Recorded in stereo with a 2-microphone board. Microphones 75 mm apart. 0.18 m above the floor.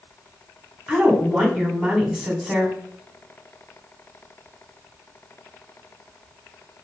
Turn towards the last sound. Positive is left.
turn(degrees=-10)  # may be behind; listen again after turning